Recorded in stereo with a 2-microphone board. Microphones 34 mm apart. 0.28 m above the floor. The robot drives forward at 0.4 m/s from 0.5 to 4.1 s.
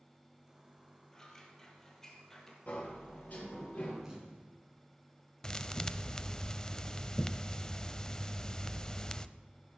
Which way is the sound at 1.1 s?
15° left (ahead or behind).